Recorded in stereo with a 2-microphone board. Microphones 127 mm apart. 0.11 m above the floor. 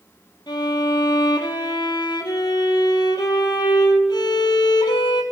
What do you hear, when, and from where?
0.5 s a violin: 35° left (ahead or behind), 1.0 m